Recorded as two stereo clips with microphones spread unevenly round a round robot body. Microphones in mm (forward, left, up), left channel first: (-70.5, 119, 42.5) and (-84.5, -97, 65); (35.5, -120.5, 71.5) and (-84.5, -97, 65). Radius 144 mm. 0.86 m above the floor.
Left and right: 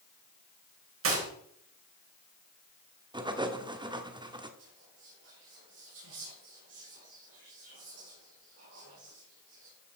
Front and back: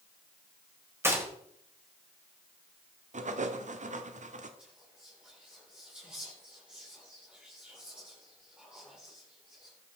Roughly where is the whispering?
Right.